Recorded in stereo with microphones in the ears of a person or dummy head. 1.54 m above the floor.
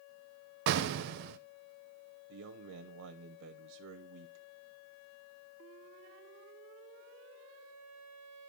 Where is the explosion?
55° right (ahead or behind), 0.6 m.